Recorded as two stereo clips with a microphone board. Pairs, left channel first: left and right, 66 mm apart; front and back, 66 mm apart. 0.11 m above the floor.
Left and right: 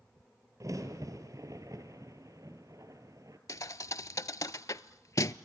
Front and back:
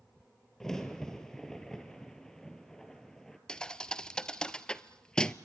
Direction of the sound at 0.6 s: 80° right.